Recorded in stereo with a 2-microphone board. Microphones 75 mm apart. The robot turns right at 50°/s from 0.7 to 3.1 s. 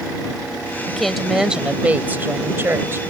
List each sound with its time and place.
0.9 s a woman speaking: 170° left; by 3.0 s 85° right